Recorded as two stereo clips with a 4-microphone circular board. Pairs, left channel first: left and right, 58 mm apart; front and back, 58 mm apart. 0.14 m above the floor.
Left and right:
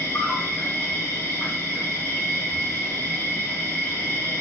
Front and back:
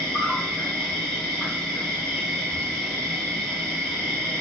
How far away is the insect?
About 1.9 m.